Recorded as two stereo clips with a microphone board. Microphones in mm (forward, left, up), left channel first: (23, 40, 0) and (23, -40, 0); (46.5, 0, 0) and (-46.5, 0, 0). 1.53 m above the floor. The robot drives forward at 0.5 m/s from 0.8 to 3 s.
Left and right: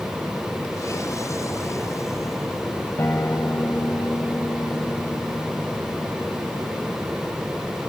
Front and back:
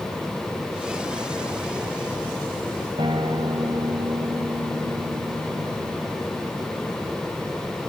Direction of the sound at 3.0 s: 150° left.